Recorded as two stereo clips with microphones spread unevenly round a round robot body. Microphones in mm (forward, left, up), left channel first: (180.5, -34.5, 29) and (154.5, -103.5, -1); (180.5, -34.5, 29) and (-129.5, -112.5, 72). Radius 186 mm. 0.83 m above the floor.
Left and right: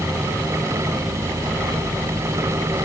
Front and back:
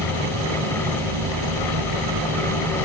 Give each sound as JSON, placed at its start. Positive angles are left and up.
{"t": 0.0, "sound": "an insect", "azimuth_deg": -170}